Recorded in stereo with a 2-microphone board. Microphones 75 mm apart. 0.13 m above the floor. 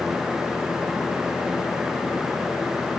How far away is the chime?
I don't hear a chime.